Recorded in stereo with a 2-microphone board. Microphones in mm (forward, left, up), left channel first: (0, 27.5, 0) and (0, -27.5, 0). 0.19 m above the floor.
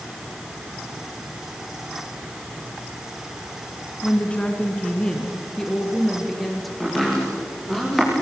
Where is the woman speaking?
25° left (ahead or behind), 2 m; by 6.7 s centre (ahead or behind), 3.5 m.